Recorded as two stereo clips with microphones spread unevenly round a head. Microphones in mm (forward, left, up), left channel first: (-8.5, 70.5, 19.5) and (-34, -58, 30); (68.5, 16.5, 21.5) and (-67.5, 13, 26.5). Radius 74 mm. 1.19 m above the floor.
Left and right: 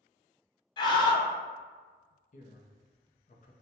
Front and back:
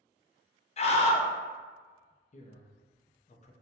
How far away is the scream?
About 0.6 m.